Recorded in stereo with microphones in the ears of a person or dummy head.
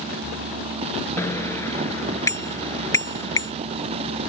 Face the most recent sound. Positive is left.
turn(degrees=20)  # may be behind; listen again after turning